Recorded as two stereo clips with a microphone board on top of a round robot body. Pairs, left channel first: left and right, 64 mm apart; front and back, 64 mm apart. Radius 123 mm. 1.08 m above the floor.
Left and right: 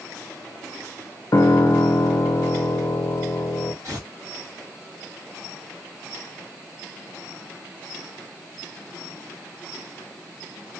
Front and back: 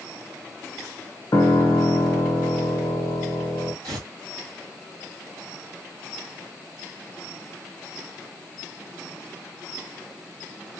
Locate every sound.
1.3 s a piano: 50° left, 0.6 m
3.8 s tearing paper: 150° right, 2 m